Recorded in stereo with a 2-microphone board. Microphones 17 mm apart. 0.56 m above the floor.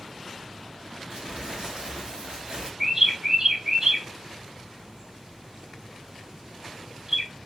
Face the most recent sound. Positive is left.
turn(degrees=-45)  # may be behind; listen again after turning